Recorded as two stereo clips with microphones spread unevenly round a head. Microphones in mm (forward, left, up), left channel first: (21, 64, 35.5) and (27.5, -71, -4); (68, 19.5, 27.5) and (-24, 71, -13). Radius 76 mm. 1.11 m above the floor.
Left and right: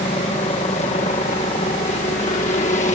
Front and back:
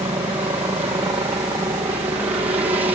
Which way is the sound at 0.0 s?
130° left.